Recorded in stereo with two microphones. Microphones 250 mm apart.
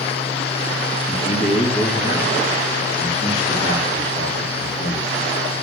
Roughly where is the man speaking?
Left.